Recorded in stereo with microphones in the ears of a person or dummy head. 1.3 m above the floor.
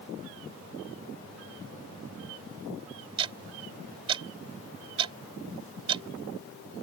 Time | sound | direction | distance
3.2 | ticking | 25° right (ahead or behind) | ?